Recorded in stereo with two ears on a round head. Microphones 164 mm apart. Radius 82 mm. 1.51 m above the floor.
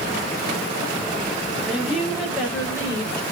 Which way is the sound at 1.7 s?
5° right (ahead or behind).